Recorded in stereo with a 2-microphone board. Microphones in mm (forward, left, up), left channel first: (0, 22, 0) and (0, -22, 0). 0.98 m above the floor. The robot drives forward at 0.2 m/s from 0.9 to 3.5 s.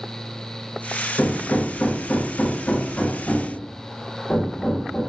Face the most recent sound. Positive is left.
turn(degrees=30)  # may be behind; listen again after turning